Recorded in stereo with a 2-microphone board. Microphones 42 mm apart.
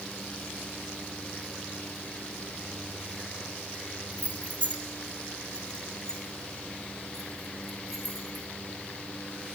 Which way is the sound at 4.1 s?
35° left (ahead or behind).